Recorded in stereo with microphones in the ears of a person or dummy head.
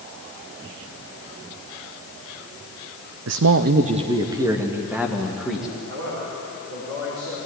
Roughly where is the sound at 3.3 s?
Right.